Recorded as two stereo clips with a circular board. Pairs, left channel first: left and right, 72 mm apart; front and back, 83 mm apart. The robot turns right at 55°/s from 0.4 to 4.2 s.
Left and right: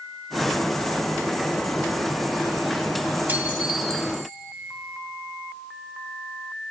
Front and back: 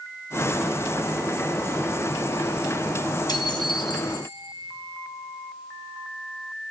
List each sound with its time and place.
3.3 s dishes clattering: 30° right, 3 m; by 4.4 s 20° left, 3 m